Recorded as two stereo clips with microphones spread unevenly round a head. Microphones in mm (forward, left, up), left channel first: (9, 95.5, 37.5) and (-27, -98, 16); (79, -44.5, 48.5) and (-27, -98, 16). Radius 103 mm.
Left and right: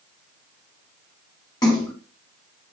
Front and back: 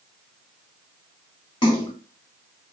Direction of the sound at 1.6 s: 15° left.